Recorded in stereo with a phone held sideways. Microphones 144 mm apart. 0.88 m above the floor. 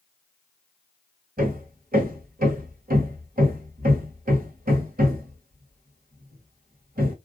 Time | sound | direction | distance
1.4 | hammering | 75° right (ahead or behind) | 1.4 m